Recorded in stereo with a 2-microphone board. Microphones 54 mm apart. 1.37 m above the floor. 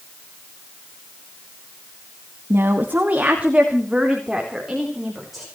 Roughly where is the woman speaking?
Right.